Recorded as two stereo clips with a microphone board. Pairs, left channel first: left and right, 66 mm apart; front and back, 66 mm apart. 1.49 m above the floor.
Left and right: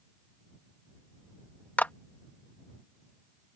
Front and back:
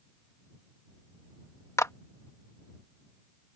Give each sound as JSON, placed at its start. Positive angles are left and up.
{"t": 1.8, "sound": "a clap", "azimuth_deg": 30}